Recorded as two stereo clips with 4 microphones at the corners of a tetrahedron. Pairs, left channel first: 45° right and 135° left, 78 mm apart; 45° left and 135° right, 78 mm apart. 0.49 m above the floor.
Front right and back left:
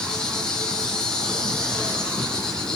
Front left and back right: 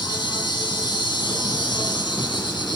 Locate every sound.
0.0 s an insect: 35° left, 3.5 m